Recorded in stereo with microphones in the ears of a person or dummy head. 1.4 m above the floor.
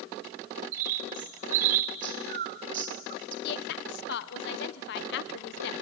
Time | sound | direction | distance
0.7 | a bird | 50° right (ahead or behind) | 0.9 m
3.4 | a woman speaking | 65° left (ahead or behind) | 1.0 m